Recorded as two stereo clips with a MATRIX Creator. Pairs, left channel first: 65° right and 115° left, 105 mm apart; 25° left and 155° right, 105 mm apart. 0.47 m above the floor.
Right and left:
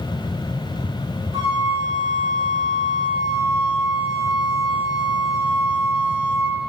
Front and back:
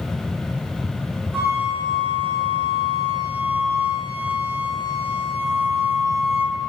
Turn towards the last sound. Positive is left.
turn(degrees=135)